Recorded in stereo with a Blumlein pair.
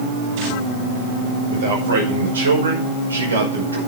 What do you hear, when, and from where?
1.5 s a man speaking: 60° right, 5.5 m; by 3.8 s 75° right, 5 m